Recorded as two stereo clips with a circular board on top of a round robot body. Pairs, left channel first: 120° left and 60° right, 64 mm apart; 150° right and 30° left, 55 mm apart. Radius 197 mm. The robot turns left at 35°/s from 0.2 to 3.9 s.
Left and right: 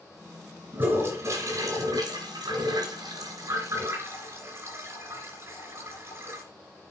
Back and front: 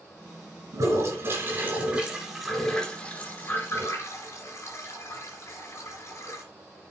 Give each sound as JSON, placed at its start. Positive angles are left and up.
{"t": 0.7, "sound": "a toilet flushing", "azimuth_deg": 5, "distance_m": 3.0}